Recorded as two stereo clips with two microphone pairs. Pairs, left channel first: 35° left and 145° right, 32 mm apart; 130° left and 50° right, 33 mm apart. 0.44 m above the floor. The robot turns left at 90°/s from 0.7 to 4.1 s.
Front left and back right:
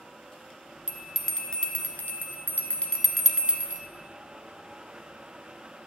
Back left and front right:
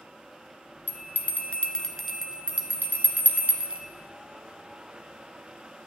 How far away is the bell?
About 1.2 m.